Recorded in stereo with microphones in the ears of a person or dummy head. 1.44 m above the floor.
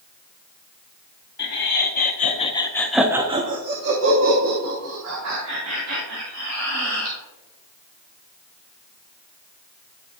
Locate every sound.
1.4 s laughter: 60° left (ahead or behind), 1.3 m; by 7.2 s 80° right, 3 m